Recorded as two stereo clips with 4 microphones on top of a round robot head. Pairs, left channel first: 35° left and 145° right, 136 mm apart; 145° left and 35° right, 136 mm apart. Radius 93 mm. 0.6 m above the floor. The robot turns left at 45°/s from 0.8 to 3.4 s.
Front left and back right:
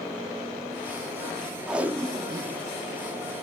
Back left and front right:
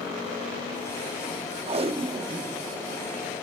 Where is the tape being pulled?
60° right, 1.0 m; by 2.6 s 100° right, 1.0 m.